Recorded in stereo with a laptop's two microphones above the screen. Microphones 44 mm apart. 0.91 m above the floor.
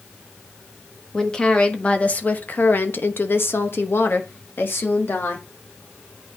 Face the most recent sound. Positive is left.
turn(degrees=55)  # may be behind; listen again after turning